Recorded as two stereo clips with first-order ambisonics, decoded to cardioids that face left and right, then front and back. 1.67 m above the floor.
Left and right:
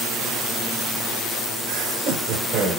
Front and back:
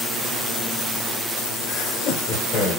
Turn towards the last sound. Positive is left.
turn(degrees=-40)